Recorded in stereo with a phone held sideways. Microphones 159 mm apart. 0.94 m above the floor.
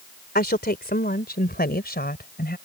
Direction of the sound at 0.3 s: 80° left.